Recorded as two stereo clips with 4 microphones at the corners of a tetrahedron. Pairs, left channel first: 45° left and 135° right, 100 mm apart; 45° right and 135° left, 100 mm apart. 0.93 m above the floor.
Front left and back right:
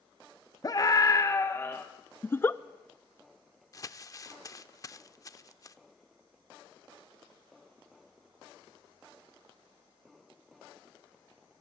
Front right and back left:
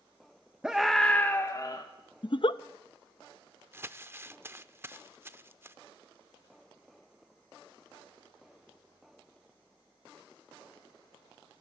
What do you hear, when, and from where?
0.6 s a scream: 60° left, 1.0 m; by 1.9 s 20° right, 1.1 m
2.2 s a giggle: 20° right, 0.5 m
3.7 s crumpling: 80° left, 0.6 m